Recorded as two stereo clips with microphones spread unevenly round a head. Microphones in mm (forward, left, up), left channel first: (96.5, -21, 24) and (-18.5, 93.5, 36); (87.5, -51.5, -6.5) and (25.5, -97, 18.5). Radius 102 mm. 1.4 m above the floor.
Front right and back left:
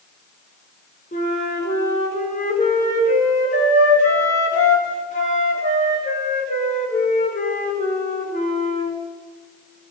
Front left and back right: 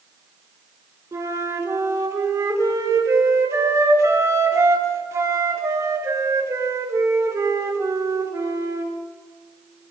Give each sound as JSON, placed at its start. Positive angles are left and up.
{"t": 1.1, "sound": "a flute", "azimuth_deg": -100, "distance_m": 5.0}